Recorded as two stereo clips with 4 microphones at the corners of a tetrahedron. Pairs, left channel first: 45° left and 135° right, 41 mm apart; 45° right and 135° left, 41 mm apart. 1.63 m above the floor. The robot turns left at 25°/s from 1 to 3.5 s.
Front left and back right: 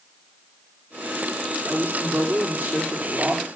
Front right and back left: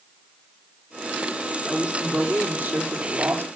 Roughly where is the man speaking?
Behind right.